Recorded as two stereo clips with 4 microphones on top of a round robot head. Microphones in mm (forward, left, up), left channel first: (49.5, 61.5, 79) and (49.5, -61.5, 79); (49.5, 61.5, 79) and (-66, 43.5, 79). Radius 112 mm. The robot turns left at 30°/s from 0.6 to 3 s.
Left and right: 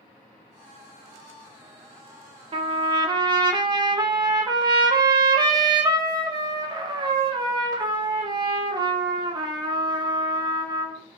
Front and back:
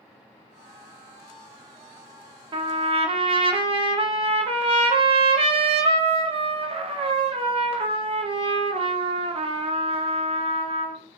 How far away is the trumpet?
About 0.6 m.